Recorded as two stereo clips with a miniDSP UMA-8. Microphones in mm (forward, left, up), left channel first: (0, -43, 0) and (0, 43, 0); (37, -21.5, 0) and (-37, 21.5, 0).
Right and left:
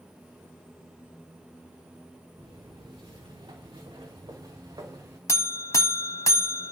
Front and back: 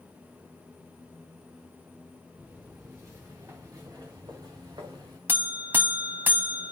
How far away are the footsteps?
About 3.5 m.